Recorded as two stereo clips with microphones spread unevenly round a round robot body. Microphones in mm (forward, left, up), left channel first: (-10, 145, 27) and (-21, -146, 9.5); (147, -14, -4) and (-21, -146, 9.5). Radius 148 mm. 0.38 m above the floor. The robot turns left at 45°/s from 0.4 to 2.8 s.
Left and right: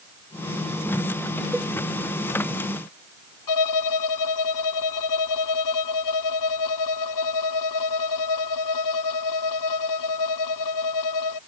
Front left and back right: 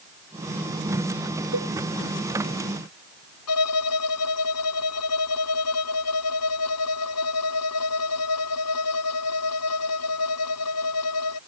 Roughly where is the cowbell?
Behind.